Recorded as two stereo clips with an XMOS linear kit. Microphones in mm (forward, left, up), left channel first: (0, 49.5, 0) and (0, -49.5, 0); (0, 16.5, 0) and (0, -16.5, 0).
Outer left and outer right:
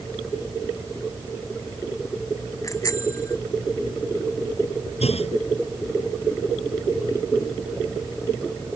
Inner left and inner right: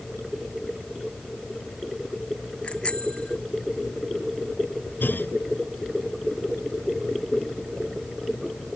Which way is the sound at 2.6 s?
30° left (ahead or behind).